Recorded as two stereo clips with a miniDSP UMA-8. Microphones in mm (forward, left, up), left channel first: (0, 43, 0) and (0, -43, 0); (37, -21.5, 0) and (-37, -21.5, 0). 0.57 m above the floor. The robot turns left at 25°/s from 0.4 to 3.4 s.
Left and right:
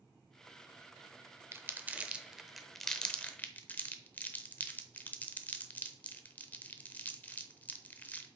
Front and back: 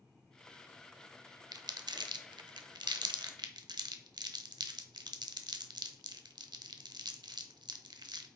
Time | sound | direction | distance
1.5 | crumpling | 150° right | 0.7 m